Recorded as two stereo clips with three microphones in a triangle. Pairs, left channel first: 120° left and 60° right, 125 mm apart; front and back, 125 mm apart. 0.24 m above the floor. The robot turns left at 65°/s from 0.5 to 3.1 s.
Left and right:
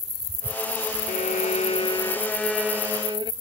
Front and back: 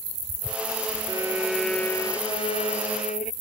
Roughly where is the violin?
Behind left.